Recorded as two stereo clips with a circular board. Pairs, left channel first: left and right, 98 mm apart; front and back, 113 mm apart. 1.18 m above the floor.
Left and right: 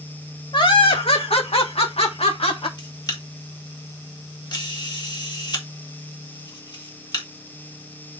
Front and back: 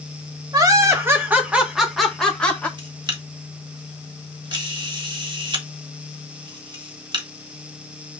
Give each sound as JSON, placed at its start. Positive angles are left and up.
{"t": 0.5, "sound": "laughter", "azimuth_deg": 125, "distance_m": 2.5}
{"t": 2.8, "sound": "a camera shutter", "azimuth_deg": 135, "distance_m": 2.0}